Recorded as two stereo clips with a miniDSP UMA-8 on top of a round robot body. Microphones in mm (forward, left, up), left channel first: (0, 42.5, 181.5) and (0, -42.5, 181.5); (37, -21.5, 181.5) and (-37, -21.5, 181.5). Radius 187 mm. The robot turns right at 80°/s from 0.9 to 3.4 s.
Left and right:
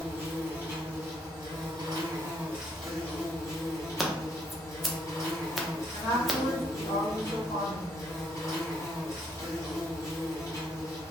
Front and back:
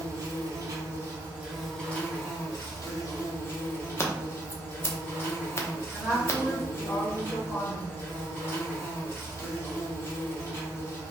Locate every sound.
0.0 s an insect: 155° right, 1.5 m; by 11.1 s 45° left, 1.5 m
4.0 s scissors: straight ahead, 0.8 m
5.9 s a woman speaking: 85° left, 1.1 m